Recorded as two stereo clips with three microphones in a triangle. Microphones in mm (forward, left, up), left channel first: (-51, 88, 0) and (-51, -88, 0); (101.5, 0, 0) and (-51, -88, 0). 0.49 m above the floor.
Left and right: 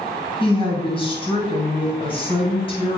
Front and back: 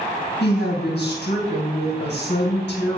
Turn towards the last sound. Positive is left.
turn(degrees=30)